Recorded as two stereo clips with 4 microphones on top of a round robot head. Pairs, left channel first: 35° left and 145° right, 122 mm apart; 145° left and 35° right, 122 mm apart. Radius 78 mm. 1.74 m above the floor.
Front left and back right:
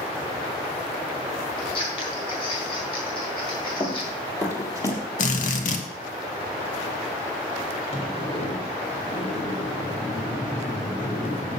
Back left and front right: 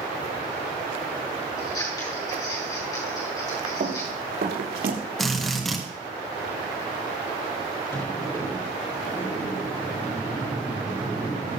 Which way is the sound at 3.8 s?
25° right.